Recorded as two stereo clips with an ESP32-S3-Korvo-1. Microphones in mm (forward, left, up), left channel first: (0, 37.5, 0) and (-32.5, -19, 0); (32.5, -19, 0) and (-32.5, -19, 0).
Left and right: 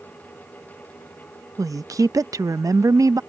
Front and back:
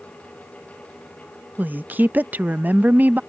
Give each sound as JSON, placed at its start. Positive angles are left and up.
{"t": 1.6, "sound": "a woman speaking", "azimuth_deg": -120}